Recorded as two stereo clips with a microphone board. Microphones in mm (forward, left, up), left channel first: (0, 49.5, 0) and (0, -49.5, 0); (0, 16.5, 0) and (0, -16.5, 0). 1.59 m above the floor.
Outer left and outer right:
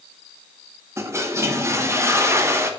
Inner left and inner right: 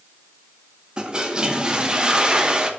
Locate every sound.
1.0 s a toilet flushing: 25° right (ahead or behind), 1.0 m